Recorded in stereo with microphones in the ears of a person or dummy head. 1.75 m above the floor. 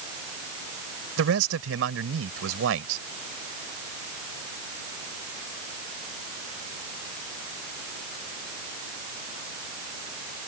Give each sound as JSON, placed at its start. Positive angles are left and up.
{"t": 1.2, "sound": "a man speaking", "side_deg": -90}